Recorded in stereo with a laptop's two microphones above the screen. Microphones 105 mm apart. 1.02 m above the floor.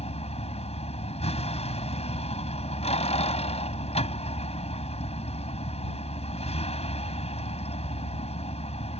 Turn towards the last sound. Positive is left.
turn(degrees=85)